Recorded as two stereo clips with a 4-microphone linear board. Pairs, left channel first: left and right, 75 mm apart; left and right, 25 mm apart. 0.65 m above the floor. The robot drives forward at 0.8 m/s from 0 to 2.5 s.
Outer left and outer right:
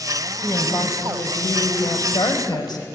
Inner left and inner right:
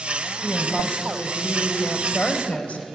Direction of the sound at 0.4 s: 60° left (ahead or behind).